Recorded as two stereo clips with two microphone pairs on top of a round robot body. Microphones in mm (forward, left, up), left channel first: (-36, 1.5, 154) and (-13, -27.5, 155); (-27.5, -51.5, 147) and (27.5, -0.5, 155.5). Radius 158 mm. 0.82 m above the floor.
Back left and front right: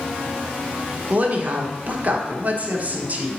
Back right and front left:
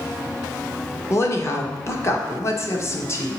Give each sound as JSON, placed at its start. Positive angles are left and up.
{"t": 1.1, "sound": "a woman speaking", "azimuth_deg": -95, "distance_m": 1.3}